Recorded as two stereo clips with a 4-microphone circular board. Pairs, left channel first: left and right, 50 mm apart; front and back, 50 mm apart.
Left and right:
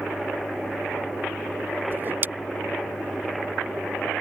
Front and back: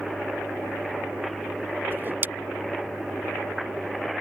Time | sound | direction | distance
1.9 | a whoosh | 135° right | ?